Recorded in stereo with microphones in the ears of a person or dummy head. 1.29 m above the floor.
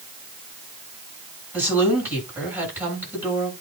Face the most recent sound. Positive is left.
turn(degrees=-10)  # may be behind; listen again after turning